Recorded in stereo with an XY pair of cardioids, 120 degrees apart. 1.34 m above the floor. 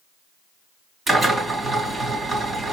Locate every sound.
1.1 s a drill: 30° right, 3 m